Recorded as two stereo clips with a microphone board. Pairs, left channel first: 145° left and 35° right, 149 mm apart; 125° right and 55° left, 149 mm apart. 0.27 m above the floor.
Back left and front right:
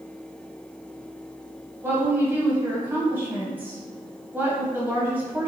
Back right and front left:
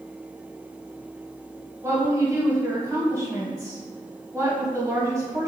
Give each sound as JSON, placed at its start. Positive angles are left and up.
{"t": 1.8, "sound": "a woman speaking", "azimuth_deg": 20, "distance_m": 1.2}